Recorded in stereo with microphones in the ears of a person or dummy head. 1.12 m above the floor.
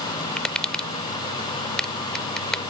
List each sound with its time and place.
0.4 s tapping: centre (ahead or behind)